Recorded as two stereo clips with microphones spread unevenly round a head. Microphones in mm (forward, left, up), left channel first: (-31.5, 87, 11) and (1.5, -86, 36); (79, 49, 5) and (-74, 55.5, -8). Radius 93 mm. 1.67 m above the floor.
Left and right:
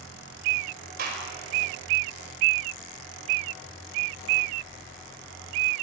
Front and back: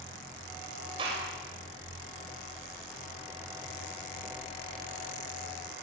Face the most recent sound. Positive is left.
turn(degrees=-115)